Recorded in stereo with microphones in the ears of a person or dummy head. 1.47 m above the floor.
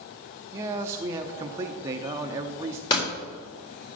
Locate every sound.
0.5 s a man speaking: 15° right (ahead or behind), 0.6 m
2.9 s a door slam: 30° left (ahead or behind), 4 m